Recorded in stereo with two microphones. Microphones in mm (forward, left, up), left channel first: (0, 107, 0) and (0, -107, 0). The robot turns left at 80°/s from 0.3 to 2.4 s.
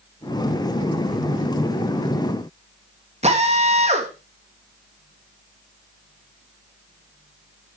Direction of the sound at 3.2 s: 30° right (ahead or behind).